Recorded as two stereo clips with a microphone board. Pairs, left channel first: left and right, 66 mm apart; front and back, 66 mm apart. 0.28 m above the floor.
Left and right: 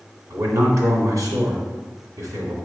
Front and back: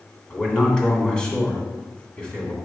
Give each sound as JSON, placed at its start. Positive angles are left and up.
{"t": 0.3, "sound": "a man speaking", "azimuth_deg": -75, "distance_m": 2.0}